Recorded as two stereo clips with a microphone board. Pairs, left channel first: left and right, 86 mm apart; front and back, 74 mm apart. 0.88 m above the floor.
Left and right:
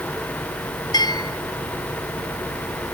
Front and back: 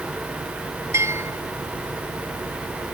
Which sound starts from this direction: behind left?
A bell, at 0.9 s.